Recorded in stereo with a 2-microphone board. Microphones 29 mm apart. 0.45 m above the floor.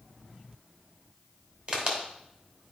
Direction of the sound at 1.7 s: 40° right (ahead or behind).